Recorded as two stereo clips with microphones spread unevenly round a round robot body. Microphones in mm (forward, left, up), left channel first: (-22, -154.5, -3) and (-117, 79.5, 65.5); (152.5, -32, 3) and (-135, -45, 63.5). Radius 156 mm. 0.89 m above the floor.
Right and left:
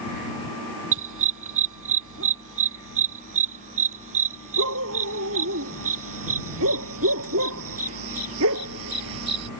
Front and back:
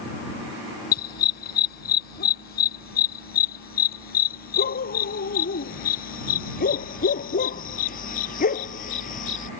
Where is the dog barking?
65° left; by 9.5 s 70° left.